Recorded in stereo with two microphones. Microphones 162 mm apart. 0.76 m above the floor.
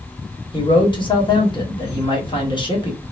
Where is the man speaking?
30° left (ahead or behind), 1.2 m.